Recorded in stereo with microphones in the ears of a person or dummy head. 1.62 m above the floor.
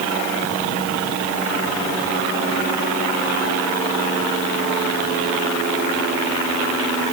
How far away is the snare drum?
I don't hear a snare drum.